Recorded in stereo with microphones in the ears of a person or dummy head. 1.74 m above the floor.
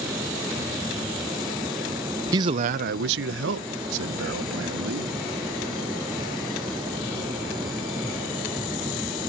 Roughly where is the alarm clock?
I don't hear an alarm clock.